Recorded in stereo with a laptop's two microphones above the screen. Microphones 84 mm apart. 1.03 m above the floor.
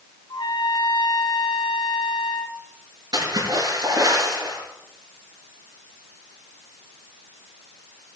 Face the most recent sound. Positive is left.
turn(degrees=-50)  # may be behind; listen again after turning